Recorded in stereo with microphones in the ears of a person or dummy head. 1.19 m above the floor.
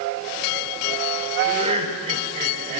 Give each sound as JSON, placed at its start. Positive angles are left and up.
{"t": 1.4, "sound": "laughter", "side_deg": -35, "distance_m": 4.5}